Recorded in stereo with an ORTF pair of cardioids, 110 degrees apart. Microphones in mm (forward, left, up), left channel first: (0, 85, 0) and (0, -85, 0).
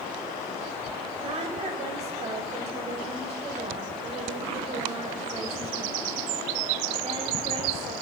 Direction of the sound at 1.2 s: 40° right.